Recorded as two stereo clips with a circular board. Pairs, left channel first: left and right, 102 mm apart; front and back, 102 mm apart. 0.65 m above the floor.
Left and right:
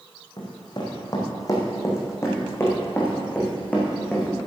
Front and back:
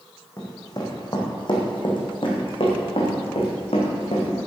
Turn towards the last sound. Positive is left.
turn(degrees=10)